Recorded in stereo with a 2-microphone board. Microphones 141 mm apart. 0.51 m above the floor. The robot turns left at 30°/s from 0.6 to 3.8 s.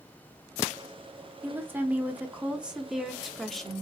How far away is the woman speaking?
About 0.7 m.